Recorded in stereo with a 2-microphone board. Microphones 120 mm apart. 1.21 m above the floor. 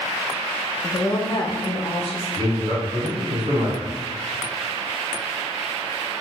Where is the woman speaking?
15° left (ahead or behind), 0.5 m; by 2.2 s 55° left (ahead or behind), 0.9 m.